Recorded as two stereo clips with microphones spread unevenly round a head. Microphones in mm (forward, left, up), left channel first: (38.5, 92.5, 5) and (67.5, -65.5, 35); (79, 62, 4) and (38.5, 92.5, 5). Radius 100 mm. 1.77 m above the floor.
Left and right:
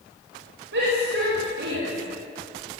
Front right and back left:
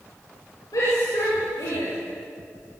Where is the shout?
75° right, 8.5 m; by 1.9 s 65° right, 7.5 m.